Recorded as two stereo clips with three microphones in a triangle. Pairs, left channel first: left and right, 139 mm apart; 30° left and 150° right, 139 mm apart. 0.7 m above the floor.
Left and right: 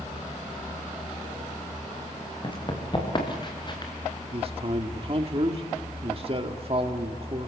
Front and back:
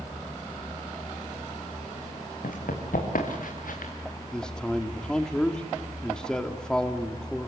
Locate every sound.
2.4 s running footsteps: 35° left, 4.5 m
4.3 s a man speaking: 55° right, 1.5 m